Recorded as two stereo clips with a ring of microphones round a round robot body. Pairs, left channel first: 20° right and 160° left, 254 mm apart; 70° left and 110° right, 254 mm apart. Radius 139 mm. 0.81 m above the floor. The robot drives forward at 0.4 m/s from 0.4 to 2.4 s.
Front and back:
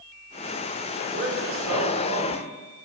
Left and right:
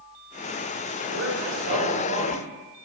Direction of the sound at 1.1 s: 150° right.